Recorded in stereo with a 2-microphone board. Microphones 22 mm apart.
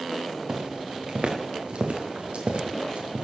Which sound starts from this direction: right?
Footsteps, at 0.5 s.